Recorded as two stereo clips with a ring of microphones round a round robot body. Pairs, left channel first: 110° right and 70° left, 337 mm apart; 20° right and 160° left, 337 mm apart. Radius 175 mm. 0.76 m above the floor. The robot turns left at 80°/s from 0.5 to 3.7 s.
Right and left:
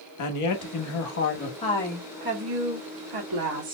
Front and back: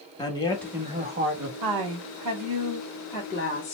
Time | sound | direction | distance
0.2 | a man speaking | 100° right | 1.1 m
1.6 | a woman speaking | straight behind | 2 m